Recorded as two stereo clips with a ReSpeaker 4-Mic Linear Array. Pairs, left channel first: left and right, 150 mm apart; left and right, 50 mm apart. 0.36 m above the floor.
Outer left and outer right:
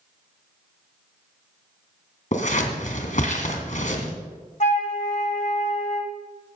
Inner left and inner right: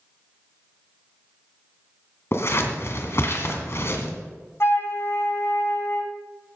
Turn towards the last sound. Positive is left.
turn(degrees=55)  # may be behind; listen again after turning